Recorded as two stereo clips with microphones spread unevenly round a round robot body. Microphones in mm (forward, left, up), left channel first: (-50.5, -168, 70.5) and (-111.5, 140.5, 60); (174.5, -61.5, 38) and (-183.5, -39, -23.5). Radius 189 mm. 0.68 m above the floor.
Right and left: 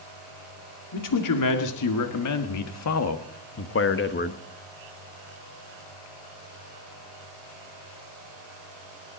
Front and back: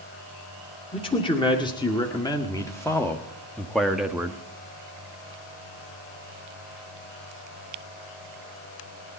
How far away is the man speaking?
About 2.5 m.